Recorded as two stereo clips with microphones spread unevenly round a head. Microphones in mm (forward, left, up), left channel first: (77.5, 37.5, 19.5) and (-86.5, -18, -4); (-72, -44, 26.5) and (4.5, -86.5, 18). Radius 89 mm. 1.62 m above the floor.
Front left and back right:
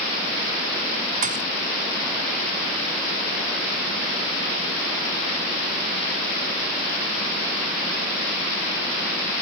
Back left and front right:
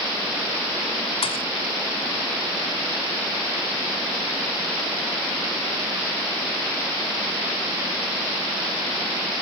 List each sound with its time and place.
1.2 s a thud: 150° left